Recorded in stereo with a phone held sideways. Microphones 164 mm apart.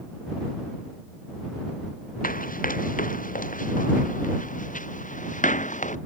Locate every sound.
2.2 s running footsteps: 55° left (ahead or behind); by 6.0 s 50° left (ahead or behind)